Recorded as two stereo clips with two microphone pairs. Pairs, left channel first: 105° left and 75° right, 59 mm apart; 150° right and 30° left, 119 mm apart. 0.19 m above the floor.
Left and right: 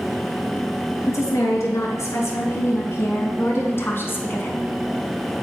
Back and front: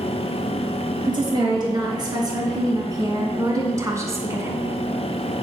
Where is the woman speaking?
80° left, 3 m; by 4.7 s 85° left, 1.5 m.